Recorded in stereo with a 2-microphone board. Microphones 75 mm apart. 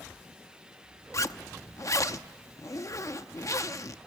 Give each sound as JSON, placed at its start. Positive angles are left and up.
{"t": 1.1, "sound": "a zipper", "side_deg": 45, "distance_m": 0.6}